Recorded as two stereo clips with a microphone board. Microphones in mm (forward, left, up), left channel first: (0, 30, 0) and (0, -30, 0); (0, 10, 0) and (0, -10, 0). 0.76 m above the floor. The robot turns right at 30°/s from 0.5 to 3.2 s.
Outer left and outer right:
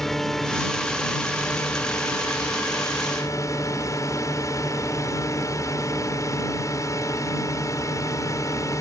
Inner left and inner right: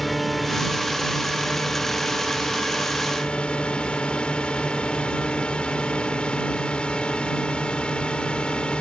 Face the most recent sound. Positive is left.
turn(degrees=85)